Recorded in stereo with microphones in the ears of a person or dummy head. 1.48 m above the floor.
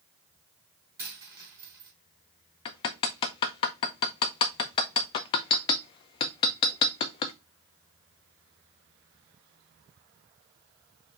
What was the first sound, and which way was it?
A dropped coin, 15° right (ahead or behind).